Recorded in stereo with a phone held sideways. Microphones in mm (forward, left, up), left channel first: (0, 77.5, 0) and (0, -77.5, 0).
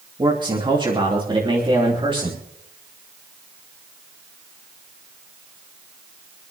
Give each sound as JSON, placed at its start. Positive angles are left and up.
{"t": 0.2, "sound": "a man speaking", "side_deg": -30, "distance_m": 3.0}